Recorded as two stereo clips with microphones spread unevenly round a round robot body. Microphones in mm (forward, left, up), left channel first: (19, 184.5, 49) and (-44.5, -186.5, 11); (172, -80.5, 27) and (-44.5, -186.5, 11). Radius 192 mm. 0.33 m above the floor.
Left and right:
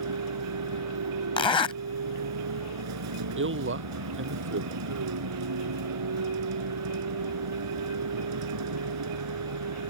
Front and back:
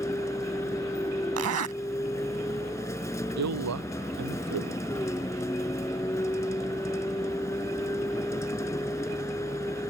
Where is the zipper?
160° left.